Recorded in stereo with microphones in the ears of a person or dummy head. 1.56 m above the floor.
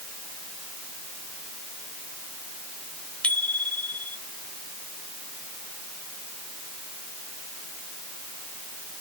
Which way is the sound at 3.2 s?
5° left (ahead or behind).